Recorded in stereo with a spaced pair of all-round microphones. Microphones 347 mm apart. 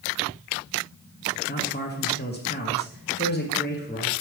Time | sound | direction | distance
1.5 | a man speaking | 30° left (ahead or behind) | 1.0 m